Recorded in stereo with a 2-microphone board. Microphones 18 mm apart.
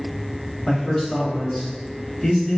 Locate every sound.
0.7 s a man speaking: 35° left (ahead or behind), 1.1 m